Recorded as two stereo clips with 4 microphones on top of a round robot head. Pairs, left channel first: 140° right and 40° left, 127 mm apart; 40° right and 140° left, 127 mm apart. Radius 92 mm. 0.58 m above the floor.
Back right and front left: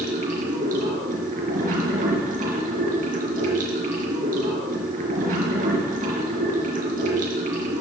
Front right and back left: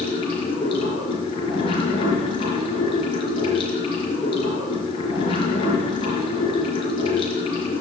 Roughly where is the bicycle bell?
I don't hear a bicycle bell.